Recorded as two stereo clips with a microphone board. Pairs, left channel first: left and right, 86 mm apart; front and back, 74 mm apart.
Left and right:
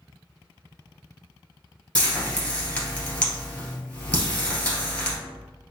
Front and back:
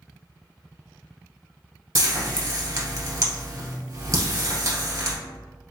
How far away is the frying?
About 1.9 m.